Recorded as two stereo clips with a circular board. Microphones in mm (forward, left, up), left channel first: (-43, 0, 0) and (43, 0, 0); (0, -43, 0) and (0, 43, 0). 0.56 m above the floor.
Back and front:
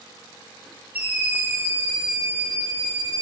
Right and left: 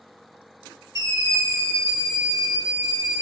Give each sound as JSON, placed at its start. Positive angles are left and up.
{"t": 0.9, "sound": "a scream", "azimuth_deg": 60, "distance_m": 1.7}